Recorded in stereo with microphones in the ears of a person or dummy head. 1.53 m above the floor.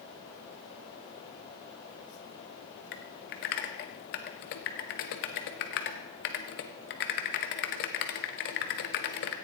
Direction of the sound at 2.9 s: 50° left (ahead or behind).